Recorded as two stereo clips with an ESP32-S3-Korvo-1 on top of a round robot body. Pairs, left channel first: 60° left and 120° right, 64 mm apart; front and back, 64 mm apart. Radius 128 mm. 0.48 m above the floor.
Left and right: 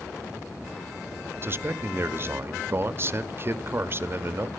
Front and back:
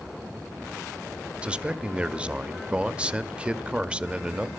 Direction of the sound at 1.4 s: 120° right.